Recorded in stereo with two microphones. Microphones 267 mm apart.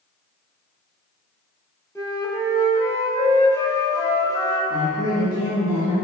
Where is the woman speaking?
15° left (ahead or behind), 1.8 m.